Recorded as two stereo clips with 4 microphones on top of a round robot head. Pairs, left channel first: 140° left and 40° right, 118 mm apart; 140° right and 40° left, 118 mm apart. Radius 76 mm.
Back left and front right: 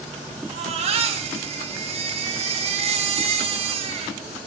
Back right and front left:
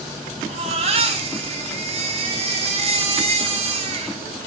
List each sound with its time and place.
0.5 s a baby crying: straight ahead, 1.7 m